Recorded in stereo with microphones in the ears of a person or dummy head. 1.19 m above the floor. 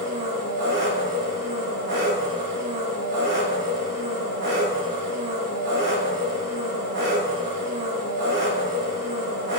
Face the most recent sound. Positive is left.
turn(degrees=-55)  # may be behind; listen again after turning